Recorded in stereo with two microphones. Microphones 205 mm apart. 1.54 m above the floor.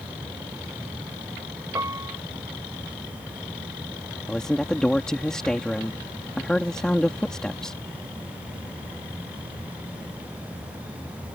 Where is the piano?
15° right (ahead or behind).